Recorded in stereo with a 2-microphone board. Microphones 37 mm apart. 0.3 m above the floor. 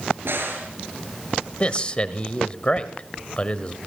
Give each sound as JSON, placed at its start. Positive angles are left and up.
{"t": 0.2, "sound": "a crack", "side_deg": -75, "distance_m": 5.5}
{"t": 1.6, "sound": "a man speaking", "side_deg": 30, "distance_m": 1.0}